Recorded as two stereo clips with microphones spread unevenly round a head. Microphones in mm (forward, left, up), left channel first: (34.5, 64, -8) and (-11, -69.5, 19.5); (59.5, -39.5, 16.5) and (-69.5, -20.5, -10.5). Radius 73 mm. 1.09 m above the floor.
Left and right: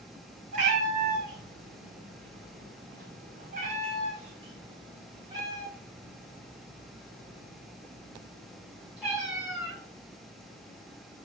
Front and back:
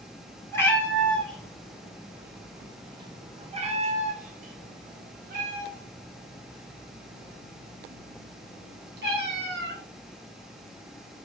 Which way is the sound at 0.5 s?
75° right.